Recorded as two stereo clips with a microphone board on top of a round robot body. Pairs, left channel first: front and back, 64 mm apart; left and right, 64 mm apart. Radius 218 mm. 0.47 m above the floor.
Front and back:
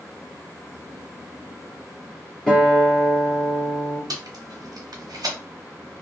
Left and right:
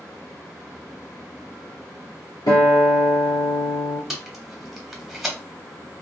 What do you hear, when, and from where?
2.5 s a guitar: 80° left, 1.4 m
4.1 s tape being pulled: 175° right, 1.0 m